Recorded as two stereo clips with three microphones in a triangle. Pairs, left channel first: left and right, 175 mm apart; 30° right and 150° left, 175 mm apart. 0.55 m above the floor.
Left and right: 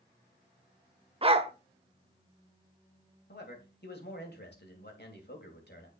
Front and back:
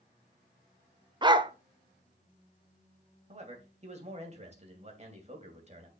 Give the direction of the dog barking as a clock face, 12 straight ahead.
5 o'clock.